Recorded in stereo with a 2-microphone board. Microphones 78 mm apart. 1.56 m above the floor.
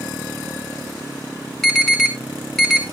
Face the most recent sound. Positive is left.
turn(degrees=0)  # may be behind; listen again after turning